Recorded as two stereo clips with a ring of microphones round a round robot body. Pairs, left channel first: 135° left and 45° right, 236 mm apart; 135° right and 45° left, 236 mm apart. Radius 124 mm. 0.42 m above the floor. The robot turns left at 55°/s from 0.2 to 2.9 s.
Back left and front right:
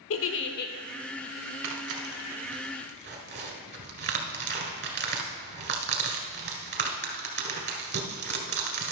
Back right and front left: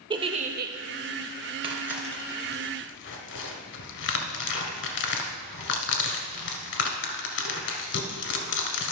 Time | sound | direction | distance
0.1 | a giggle | 115° left | 0.8 m
1.6 | tearing paper | 25° right | 1.7 m